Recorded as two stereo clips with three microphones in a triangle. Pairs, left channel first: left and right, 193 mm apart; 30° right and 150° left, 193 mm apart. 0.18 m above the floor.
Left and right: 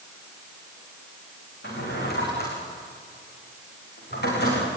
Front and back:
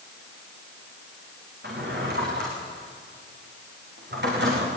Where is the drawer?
120° left, 8 m.